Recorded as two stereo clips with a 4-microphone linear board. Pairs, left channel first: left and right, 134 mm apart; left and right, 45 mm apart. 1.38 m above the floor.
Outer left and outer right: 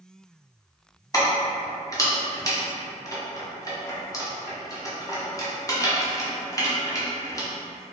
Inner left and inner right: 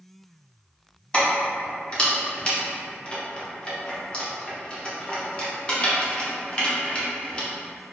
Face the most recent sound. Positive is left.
turn(degrees=25)  # may be behind; listen again after turning